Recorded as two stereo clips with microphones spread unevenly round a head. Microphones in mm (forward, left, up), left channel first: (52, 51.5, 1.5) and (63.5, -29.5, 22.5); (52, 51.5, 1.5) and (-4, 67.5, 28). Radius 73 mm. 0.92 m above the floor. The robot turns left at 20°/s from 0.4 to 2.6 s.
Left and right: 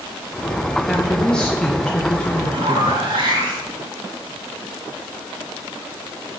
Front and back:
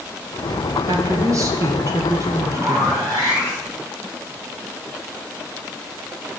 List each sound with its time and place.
0.9 s a woman speaking: 150° left, 0.9 m; by 3.1 s 115° left, 0.9 m
2.5 s a zipper: 135° right, 5 m